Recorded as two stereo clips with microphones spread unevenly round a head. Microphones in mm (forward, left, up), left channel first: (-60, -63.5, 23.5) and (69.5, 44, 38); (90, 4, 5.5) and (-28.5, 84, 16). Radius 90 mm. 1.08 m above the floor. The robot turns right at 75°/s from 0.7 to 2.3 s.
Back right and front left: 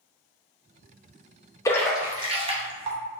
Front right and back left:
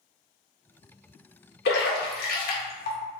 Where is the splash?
70° right, 1.0 m; by 3.0 s 20° right, 1.0 m.